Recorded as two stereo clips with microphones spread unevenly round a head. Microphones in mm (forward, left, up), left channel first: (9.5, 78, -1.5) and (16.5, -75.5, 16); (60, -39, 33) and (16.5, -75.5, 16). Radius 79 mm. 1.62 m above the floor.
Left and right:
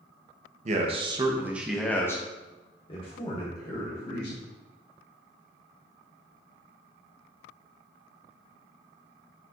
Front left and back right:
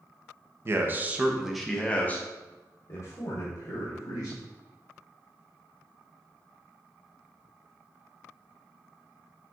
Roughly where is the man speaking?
Right.